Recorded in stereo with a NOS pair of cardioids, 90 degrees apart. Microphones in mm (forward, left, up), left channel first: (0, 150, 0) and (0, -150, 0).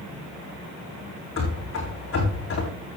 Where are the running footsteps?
50° left, 4.5 m.